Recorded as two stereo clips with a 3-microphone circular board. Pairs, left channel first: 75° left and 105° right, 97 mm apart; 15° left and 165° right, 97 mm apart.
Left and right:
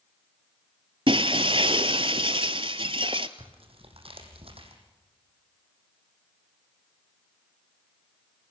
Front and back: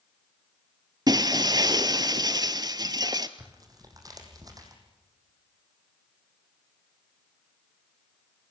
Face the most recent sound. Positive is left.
turn(degrees=-115)